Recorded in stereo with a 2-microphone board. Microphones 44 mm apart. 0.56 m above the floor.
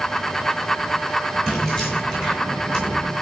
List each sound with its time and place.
1.5 s keys jangling: 15° left (ahead or behind), 6.5 m; by 3.1 s 25° left (ahead or behind), 5.5 m